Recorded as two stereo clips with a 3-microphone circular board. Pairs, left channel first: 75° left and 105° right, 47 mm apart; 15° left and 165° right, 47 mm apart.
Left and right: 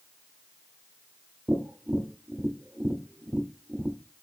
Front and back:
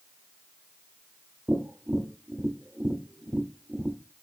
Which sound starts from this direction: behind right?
Tapping, at 1.5 s.